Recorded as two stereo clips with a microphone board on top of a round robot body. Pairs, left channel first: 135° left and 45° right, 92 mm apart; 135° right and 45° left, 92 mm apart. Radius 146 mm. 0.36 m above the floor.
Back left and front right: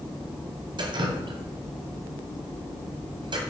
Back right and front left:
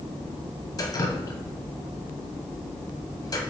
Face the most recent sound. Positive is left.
turn(degrees=-85)